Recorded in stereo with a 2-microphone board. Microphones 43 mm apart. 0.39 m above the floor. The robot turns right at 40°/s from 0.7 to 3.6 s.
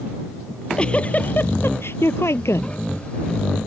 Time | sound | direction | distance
0.5 | a giggle | 15° left | ?